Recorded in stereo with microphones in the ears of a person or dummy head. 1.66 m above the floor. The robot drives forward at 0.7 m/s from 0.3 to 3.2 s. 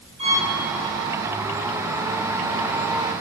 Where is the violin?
30° right (ahead or behind), 3.5 m.